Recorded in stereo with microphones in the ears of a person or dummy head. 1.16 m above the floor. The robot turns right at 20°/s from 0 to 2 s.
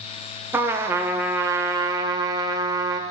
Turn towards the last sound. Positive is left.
turn(degrees=-20)  # may be behind; listen again after turning